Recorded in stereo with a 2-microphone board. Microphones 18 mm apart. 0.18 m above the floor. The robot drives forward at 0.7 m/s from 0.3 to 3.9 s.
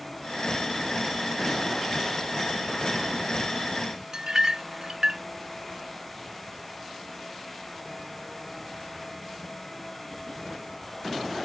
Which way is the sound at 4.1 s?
45° right (ahead or behind).